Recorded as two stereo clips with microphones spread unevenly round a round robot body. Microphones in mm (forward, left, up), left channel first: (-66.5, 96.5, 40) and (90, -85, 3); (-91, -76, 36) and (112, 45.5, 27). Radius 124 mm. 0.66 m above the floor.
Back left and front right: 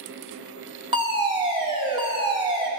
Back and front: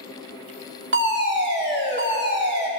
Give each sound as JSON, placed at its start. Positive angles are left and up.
{"t": 0.9, "sound": "a fire alarm", "azimuth_deg": 10, "distance_m": 2.5}